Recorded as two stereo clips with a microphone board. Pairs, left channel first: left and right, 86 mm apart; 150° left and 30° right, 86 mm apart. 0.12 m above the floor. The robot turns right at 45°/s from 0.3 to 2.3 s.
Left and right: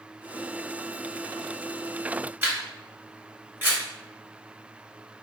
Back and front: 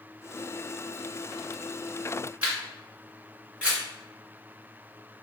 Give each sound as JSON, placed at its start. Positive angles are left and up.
{"t": 2.4, "sound": "a camera shutter", "azimuth_deg": -80, "distance_m": 1.8}